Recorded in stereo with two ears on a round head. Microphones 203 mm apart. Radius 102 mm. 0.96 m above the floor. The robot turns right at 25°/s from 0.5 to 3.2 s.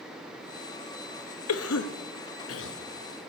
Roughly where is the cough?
Left.